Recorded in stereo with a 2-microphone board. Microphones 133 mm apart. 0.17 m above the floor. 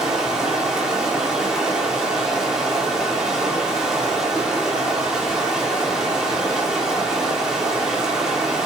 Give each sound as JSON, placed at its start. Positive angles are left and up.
{"t": 0.0, "sound": "running water", "side_deg": -5, "distance_m": 1.1}